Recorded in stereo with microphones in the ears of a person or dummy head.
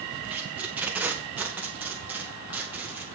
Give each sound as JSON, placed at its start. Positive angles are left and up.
{"t": 0.3, "sound": "tape being pulled", "side_deg": -5, "distance_m": 1.7}